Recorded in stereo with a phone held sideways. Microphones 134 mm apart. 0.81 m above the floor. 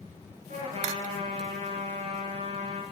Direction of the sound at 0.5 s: 65° right (ahead or behind).